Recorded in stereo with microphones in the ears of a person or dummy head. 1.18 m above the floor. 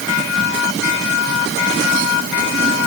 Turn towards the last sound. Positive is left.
No sound to turn to.